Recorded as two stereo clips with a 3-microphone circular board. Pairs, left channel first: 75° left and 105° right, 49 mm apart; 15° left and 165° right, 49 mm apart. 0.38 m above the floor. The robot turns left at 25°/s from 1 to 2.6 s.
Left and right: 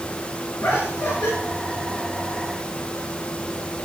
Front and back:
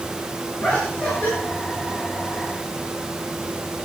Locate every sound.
0.6 s laughter: 75° left, 5 m; by 1.3 s 65° left, 5 m